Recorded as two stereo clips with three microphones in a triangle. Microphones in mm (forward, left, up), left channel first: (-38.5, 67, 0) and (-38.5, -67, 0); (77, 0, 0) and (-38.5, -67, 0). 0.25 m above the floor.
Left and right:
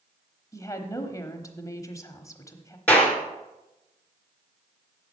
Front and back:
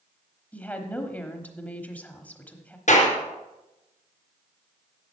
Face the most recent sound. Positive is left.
turn(degrees=10)